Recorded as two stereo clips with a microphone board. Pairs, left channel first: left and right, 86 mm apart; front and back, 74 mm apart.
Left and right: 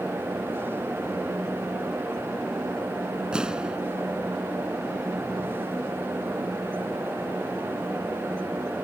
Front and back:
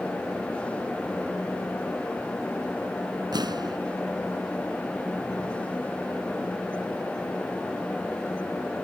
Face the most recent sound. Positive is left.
turn(degrees=-170)